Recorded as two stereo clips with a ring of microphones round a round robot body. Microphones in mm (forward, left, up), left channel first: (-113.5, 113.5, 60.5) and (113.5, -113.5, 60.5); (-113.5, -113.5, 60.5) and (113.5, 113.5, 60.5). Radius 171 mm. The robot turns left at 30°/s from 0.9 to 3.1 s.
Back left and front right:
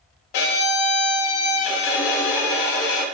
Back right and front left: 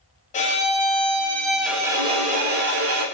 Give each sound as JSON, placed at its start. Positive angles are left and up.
{"t": 0.3, "sound": "a violin", "azimuth_deg": 155, "distance_m": 0.5}